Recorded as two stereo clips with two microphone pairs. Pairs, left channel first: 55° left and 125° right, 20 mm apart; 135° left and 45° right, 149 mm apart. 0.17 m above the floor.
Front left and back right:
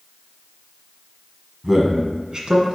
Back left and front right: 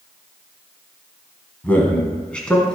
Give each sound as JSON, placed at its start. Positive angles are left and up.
{"t": 1.6, "sound": "a man speaking", "azimuth_deg": -165, "distance_m": 1.1}